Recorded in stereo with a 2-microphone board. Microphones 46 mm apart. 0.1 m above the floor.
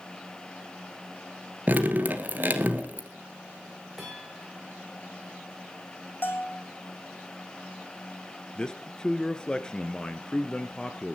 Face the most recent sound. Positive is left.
turn(degrees=20)  # may be behind; listen again after turning